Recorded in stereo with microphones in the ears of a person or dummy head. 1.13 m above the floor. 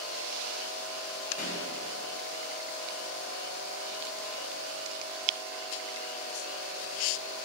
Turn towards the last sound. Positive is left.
turn(degrees=45)  # may be behind; listen again after turning